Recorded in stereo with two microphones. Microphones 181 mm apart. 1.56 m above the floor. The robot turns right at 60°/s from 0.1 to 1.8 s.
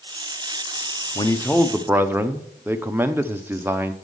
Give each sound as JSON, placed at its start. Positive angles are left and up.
{"t": 1.1, "sound": "a man speaking", "azimuth_deg": 150, "distance_m": 0.8}